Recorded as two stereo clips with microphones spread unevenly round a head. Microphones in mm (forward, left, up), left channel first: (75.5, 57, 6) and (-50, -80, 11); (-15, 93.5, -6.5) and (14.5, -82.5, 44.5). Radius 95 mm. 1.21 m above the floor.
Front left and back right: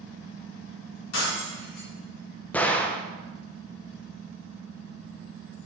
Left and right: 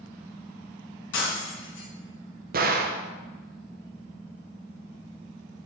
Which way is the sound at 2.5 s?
35° right.